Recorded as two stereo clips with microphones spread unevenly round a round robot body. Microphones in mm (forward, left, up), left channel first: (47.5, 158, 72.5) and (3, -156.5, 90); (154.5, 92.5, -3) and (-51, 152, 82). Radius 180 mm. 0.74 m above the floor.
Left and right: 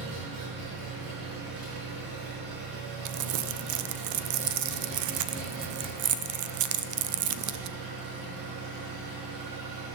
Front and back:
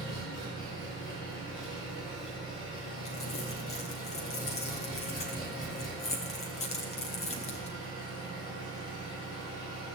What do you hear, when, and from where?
0.0 s an engine running: 75° right, 6 m
3.0 s crumpling: 65° right, 0.6 m